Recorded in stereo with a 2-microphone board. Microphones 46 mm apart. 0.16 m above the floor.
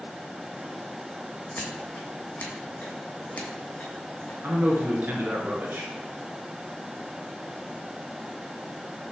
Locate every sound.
1.6 s scissors: 25° left (ahead or behind), 1.3 m
4.4 s a man speaking: 50° right (ahead or behind), 2 m